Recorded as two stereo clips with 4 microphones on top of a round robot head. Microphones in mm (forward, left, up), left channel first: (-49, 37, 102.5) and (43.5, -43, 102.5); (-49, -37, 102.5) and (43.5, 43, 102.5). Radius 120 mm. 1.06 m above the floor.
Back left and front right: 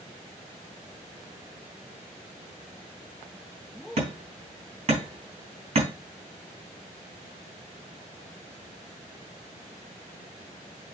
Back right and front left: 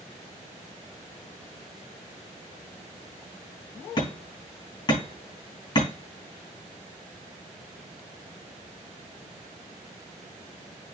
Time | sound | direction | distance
4.0 | hammering | 80° right | 3.5 m